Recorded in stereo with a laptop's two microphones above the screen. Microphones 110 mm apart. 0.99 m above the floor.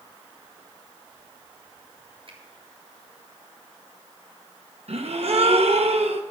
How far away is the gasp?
About 1.0 m.